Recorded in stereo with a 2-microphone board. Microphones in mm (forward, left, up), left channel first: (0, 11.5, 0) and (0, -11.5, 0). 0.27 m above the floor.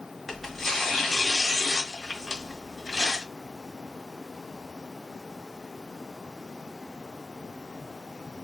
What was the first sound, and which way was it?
Tearing paper, 15° left (ahead or behind).